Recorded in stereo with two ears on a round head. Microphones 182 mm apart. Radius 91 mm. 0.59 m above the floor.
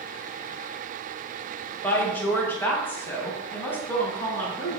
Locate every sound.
1.8 s a woman speaking: 10° left (ahead or behind), 2.5 m